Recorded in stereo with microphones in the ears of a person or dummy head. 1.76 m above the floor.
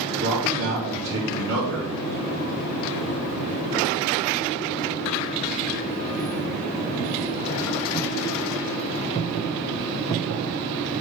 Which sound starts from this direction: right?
A man speaking, at 0.2 s.